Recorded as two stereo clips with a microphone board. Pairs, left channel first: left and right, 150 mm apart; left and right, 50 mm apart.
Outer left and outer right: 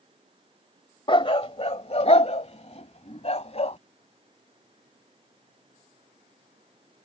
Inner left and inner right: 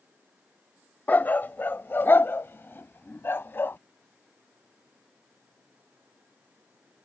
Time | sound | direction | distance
1.1 | a dog barking | 35° left (ahead or behind) | ?